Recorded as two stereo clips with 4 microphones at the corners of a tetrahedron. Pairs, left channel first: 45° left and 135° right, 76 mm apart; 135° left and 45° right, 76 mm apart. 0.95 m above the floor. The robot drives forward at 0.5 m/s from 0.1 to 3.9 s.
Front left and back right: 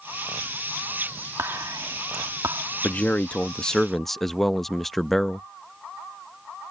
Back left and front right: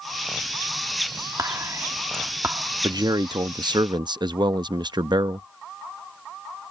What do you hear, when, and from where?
1.4 s whispering: 85° right; by 2.6 s 105° right
2.8 s a man speaking: 25° right; by 5.5 s 40° right